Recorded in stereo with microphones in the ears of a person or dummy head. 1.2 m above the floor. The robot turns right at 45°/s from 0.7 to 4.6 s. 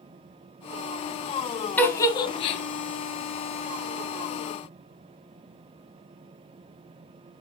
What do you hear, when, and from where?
1.8 s a giggle: 10° left (ahead or behind), 1.4 m; by 2.6 s 35° left (ahead or behind), 1.4 m